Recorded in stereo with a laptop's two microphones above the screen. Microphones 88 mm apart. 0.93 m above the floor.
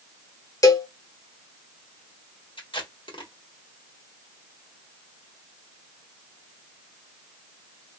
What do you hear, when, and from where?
0.6 s a cowbell: 45° left (ahead or behind), 0.7 m
2.6 s tape being pulled: 85° left, 1.3 m